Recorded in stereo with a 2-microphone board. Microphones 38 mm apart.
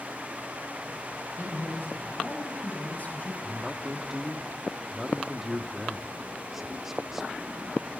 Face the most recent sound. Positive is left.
turn(degrees=-10)  # may be behind; listen again after turning